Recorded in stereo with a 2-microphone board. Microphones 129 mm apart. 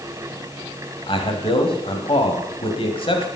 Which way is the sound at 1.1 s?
45° left (ahead or behind).